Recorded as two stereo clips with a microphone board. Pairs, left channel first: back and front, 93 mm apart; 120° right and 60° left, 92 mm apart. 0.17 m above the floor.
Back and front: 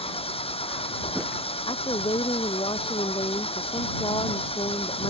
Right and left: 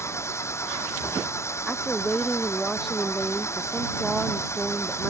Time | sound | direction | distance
0.0 | an engine running | straight behind | ?
1.7 | a woman speaking | 150° left | ?